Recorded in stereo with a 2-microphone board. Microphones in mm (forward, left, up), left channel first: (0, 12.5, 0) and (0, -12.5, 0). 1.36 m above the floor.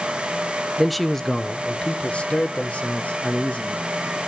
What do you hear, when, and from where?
0.8 s a man speaking: 10° right (ahead or behind), 0.8 m; by 3.9 s 65° left (ahead or behind), 2.5 m